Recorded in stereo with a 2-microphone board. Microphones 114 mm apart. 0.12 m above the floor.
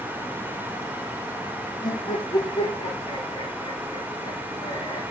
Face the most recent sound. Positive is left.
turn(degrees=35)  # may be behind; listen again after turning